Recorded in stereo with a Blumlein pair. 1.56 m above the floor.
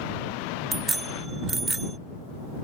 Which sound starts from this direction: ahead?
A bicycle bell, at 0.7 s.